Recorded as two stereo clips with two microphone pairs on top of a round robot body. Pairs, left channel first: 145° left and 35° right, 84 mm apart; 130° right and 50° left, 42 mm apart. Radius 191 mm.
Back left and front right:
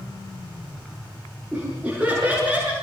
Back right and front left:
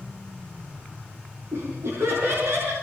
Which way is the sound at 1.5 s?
35° left.